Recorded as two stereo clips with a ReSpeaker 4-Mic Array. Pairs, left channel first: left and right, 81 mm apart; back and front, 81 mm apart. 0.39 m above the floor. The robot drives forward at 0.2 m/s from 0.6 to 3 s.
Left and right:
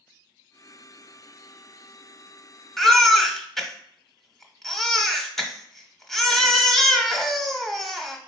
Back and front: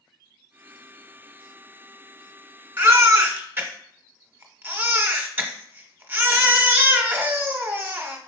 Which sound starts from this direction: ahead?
A baby crying, at 2.8 s.